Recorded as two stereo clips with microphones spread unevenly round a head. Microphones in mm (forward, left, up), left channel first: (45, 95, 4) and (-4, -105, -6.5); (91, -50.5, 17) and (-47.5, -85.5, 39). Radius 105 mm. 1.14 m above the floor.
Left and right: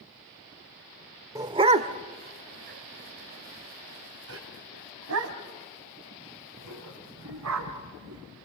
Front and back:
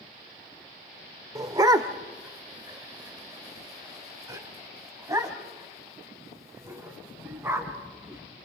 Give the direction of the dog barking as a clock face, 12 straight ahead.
6 o'clock.